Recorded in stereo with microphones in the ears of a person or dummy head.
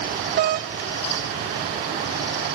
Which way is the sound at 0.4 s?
45° right (ahead or behind).